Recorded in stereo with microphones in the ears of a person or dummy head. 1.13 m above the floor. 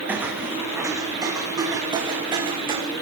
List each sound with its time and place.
0.1 s footsteps: 10° right (ahead or behind), 4 m; by 2.8 s 30° right (ahead or behind), 5 m